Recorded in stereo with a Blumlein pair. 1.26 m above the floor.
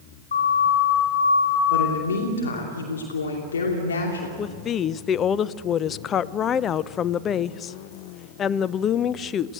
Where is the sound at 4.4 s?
25° left, 0.5 m.